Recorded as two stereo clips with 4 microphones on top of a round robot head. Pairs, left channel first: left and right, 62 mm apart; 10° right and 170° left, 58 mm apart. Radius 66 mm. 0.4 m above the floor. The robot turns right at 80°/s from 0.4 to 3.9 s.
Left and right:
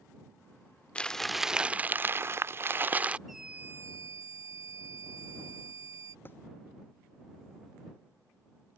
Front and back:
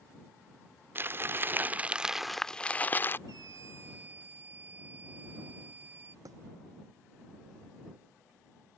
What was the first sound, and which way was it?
Crumpling, 150° left.